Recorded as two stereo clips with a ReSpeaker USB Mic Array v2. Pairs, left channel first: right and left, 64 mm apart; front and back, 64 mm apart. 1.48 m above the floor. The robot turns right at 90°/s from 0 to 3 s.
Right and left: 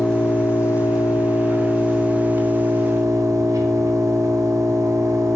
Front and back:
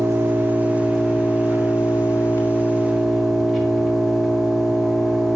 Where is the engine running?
175° right, 1.3 m; by 5.4 s 95° left, 1.3 m.